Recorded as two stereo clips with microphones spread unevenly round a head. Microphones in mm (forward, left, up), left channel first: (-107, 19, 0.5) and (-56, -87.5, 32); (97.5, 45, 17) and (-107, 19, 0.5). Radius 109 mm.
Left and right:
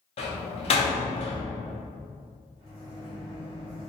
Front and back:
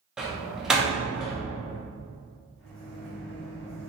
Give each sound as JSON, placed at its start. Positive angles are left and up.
{"t": 0.2, "sound": "a door slam", "azimuth_deg": 95, "distance_m": 0.7}
{"t": 2.6, "sound": "a microwave", "azimuth_deg": -50, "distance_m": 1.5}